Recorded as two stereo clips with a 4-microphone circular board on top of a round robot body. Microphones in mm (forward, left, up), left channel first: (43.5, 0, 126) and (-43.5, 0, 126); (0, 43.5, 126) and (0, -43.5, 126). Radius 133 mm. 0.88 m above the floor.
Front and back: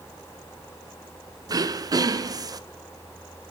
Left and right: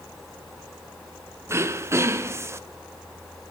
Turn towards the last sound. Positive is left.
turn(degrees=-145)